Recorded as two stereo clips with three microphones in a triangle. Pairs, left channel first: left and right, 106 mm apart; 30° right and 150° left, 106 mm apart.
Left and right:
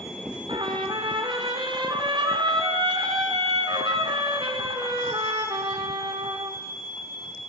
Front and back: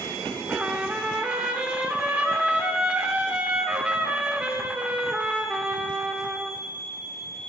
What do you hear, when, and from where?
0.5 s a trumpet: 130° right, 1.8 m